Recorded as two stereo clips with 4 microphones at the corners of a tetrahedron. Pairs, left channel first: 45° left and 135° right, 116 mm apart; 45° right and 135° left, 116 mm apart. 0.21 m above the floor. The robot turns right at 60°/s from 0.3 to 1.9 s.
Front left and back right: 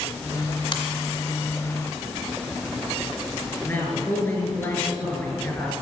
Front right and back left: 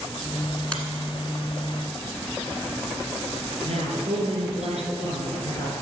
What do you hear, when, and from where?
0.7 s a finger snap: 30° left, 1.4 m; by 0.8 s 40° left, 1.4 m
3.6 s a man speaking: 110° left, 4 m